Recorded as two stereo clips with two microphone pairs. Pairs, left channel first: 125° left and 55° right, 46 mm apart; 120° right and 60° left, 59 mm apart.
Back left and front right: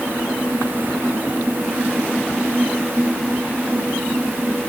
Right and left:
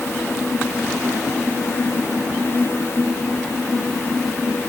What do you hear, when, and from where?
Only background noise.